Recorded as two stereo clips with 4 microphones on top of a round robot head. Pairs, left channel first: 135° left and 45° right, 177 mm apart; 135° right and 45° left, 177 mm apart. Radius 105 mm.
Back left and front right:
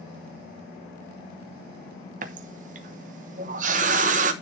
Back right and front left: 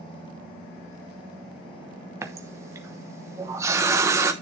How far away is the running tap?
About 0.7 m.